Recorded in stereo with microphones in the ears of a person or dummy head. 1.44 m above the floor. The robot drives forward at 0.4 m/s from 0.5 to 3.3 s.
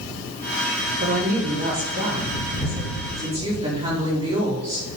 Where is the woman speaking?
45° right (ahead or behind), 1.4 m; by 4.9 s 25° right (ahead or behind), 2 m.